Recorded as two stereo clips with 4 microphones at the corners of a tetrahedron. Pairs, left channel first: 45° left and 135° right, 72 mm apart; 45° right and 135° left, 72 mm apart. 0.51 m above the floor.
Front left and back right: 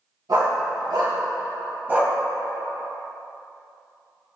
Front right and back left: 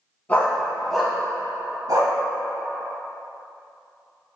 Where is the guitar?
I don't hear a guitar.